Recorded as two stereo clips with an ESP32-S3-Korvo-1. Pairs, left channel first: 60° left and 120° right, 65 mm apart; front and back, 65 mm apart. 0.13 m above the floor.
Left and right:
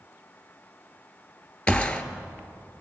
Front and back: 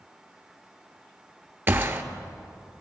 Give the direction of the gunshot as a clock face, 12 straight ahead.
8 o'clock.